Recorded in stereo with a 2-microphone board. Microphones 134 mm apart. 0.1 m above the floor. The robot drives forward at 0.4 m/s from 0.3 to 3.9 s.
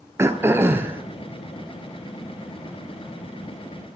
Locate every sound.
0.2 s throat clearing: 20° right (ahead or behind), 0.8 m; by 1.0 s 15° right (ahead or behind), 1.0 m